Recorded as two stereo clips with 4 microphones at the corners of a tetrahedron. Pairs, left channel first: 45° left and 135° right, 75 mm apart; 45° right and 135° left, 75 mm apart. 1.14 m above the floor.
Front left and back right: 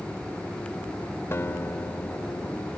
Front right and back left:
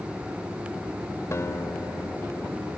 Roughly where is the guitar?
Ahead.